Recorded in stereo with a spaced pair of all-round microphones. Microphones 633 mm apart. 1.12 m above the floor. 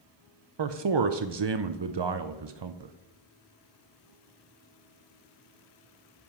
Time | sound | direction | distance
0.6 | a man speaking | 45° right (ahead or behind) | 0.5 m